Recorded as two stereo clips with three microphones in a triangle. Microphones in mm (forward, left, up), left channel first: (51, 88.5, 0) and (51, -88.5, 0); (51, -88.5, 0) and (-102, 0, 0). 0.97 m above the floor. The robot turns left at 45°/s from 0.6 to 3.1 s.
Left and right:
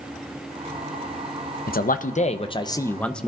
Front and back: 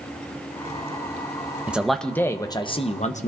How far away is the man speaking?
About 0.6 m.